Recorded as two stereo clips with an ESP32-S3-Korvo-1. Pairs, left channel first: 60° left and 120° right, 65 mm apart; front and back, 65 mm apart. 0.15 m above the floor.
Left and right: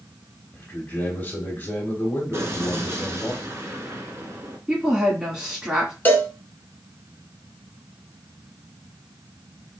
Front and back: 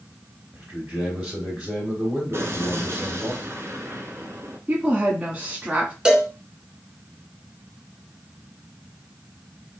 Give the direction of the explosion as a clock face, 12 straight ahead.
5 o'clock.